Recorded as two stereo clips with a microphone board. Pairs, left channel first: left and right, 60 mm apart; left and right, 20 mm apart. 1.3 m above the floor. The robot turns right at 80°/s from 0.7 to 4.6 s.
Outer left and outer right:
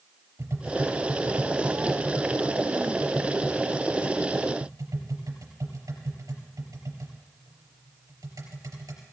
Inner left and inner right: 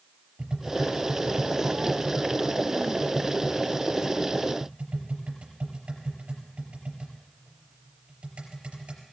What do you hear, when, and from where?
0.4 s tapping: 50° right (ahead or behind), 4.5 m; by 9.0 s 80° right, 4.5 m